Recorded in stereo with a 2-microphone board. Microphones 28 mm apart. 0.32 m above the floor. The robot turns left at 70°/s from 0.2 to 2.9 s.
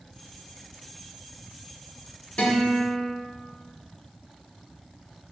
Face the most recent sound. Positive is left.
turn(degrees=75)